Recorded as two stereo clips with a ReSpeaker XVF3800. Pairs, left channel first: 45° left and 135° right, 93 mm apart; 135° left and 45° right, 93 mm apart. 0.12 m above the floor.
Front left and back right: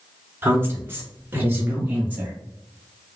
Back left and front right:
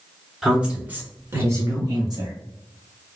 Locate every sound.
0.4 s a woman speaking: 120° right, 1.2 m; by 2.4 s 65° right, 1.7 m